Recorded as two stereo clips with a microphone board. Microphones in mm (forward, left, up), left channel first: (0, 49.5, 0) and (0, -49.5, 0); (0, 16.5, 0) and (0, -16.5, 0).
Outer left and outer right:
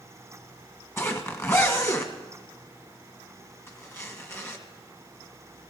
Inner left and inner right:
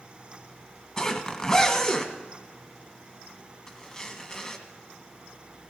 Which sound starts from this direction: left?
A zipper, at 1.0 s.